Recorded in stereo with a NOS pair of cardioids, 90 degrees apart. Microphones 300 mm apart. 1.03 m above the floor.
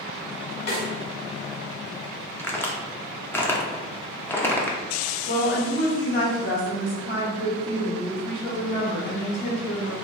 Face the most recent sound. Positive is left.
turn(degrees=35)